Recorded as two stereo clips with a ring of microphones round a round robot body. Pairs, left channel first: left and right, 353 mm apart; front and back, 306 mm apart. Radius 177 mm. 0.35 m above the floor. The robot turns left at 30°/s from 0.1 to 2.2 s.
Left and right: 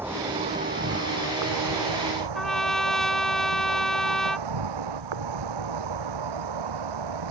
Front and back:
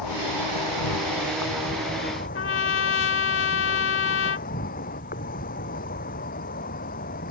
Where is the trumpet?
Straight ahead.